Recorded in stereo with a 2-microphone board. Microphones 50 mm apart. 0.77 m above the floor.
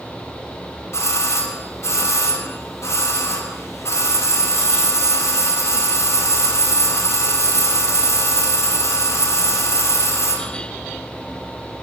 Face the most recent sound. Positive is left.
turn(degrees=65)  # may be behind; listen again after turning